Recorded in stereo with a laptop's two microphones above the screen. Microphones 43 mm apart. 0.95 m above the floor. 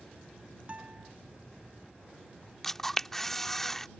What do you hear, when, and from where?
0.7 s a guitar: 35° right (ahead or behind)
2.6 s a camera shutter: 10° left (ahead or behind)